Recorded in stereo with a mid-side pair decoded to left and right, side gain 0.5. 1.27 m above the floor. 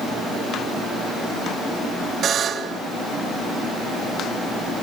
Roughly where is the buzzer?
Ahead right.